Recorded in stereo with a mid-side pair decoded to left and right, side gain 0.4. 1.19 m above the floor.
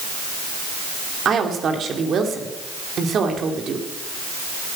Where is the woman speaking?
60° right, 2.5 m.